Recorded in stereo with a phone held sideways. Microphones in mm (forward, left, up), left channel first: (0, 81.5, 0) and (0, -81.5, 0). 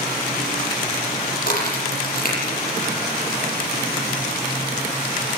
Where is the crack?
65° left (ahead or behind), 7.5 m.